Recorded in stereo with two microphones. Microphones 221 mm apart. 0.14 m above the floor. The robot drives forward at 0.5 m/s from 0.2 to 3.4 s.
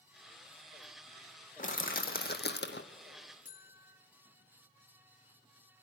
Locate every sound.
1.6 s crushing: 35° left (ahead or behind), 1.6 m; by 2.9 s 55° left (ahead or behind), 1.2 m
3.5 s a buzzer: 35° left (ahead or behind), 1.4 m